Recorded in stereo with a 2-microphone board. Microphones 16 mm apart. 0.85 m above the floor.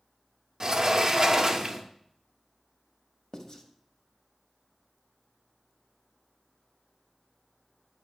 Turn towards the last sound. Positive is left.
turn(degrees=45)  # may be behind; listen again after turning